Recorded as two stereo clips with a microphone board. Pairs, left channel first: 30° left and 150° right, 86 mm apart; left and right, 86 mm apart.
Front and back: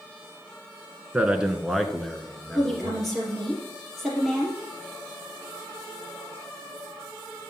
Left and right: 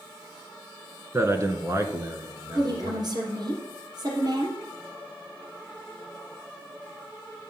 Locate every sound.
1.1 s a man speaking: 90° right, 1.6 m; by 3.1 s 45° right, 2.5 m
2.5 s a woman speaking: 60° right, 3.5 m